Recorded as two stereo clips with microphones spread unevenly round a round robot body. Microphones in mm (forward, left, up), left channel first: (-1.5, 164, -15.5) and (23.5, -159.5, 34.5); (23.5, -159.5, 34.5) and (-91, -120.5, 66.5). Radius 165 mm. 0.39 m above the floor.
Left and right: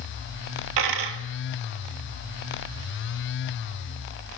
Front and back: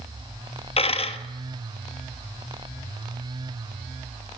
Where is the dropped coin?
65° right, 1.0 m.